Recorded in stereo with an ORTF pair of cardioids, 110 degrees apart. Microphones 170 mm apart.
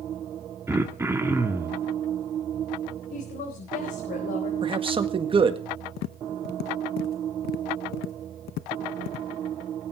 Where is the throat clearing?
15° right, 1.8 m.